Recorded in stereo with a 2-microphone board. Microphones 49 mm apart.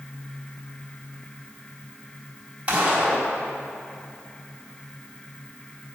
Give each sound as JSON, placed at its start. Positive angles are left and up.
{"t": 2.7, "sound": "a gunshot", "side_deg": -25, "distance_m": 3.5}